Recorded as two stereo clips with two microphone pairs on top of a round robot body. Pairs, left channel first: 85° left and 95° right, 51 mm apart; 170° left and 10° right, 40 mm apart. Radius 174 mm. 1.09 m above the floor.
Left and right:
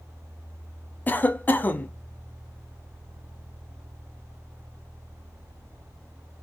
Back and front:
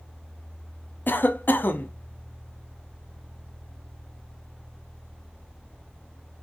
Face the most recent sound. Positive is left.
turn(degrees=135)